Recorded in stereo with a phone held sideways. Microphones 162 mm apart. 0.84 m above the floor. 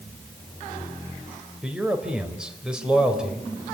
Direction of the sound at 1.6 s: 5° right (ahead or behind).